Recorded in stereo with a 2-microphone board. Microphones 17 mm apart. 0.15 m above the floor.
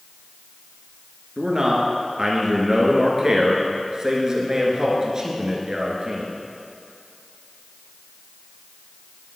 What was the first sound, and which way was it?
A man speaking, 35° right (ahead or behind).